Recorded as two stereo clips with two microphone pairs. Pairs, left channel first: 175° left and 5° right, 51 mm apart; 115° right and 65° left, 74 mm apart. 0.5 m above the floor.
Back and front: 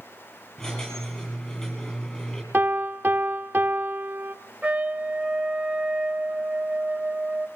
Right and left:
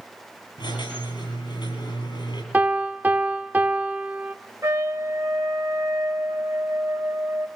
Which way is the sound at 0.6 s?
115° right.